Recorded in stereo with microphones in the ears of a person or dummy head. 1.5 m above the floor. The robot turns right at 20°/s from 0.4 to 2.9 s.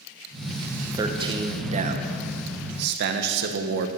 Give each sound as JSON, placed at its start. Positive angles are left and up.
{"t": 0.9, "sound": "a man speaking", "azimuth_deg": -160, "distance_m": 1.0}